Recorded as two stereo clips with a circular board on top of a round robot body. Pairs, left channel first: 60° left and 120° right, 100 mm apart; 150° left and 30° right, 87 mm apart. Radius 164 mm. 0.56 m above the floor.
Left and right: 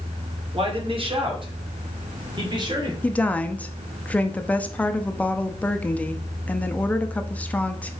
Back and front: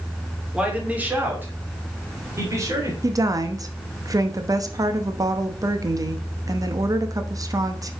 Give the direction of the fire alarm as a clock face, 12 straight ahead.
No fire alarm in this recording.